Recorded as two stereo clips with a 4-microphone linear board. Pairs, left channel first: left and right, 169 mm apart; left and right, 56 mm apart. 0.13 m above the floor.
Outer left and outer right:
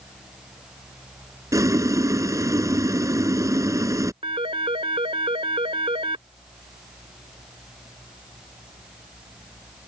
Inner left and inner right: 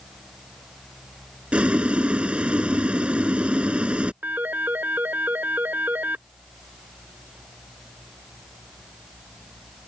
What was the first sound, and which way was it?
Boiling, 20° right (ahead or behind).